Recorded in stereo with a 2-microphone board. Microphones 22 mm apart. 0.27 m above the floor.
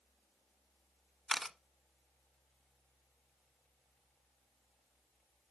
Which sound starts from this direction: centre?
A camera shutter, at 1.3 s.